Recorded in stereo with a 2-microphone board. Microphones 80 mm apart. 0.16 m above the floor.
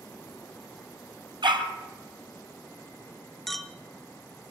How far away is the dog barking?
About 2 m.